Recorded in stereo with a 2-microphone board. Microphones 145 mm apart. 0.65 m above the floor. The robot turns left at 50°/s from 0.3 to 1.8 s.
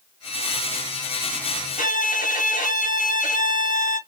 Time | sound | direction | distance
1.8 | a violin | 80° left | 2.5 m